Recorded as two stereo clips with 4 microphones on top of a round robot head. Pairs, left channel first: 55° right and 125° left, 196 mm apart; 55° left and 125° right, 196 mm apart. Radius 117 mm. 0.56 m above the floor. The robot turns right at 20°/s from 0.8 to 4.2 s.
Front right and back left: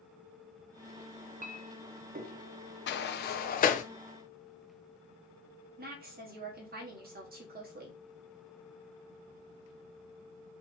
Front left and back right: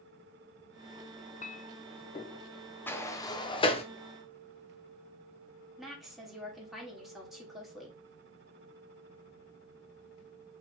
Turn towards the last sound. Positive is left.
turn(degrees=150)